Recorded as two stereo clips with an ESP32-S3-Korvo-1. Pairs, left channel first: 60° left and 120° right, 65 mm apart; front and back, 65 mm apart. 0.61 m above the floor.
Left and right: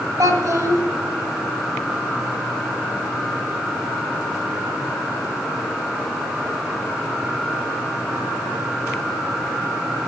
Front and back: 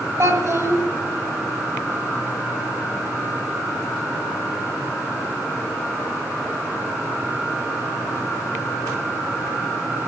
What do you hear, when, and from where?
0.2 s a child speaking: 140° right, 2 m